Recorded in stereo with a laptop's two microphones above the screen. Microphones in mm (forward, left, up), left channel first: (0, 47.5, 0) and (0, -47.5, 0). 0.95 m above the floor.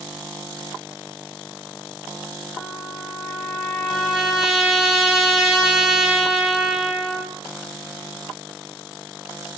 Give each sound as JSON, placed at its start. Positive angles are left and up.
{"t": 2.6, "sound": "a trumpet", "side_deg": -5, "distance_m": 0.7}